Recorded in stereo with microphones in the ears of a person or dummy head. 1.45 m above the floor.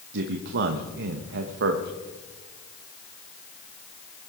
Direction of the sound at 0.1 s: 65° right (ahead or behind).